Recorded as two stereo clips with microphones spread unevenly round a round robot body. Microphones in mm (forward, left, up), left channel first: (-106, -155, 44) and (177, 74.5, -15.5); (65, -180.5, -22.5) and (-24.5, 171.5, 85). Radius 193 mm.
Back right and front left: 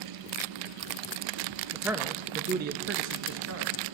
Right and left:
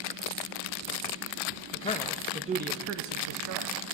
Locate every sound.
1.7 s a man speaking: 40° right, 0.7 m; by 3.7 s 80° left, 0.9 m